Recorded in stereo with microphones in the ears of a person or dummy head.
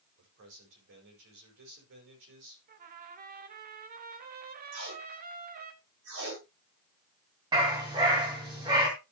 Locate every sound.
0.2 s a man speaking: 65° right (ahead or behind), 5.5 m
2.7 s a trumpet: 45° right (ahead or behind), 1.1 m
4.7 s tape being pulled: 70° right (ahead or behind), 5.5 m
7.5 s a dog barking: 25° right (ahead or behind), 3.5 m